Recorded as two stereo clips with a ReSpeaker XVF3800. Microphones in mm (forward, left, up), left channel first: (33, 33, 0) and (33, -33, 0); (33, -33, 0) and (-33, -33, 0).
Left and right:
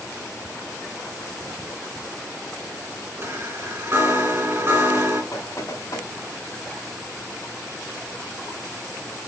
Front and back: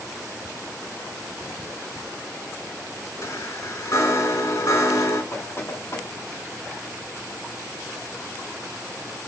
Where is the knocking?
50° left, 4 m.